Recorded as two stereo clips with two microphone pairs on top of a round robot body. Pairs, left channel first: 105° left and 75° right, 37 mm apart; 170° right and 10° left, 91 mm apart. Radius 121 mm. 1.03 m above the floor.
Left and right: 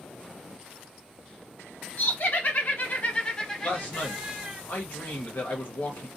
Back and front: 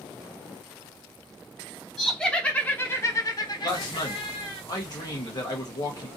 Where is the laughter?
105° left, 1.2 m; by 4.6 s 150° right, 1.1 m.